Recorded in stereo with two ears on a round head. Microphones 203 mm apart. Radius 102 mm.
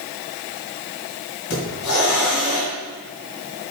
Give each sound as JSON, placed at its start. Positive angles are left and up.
{"t": 1.5, "sound": "a hiss", "side_deg": 65, "distance_m": 2.0}